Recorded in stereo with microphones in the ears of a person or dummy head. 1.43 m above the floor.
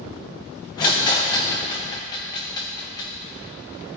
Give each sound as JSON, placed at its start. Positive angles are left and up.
{"t": 0.8, "sound": "a rattle", "side_deg": 20, "distance_m": 0.7}